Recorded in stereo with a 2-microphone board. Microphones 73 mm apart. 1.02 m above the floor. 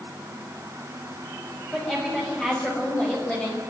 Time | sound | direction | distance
1.7 | a woman speaking | 10° left (ahead or behind) | 6.5 m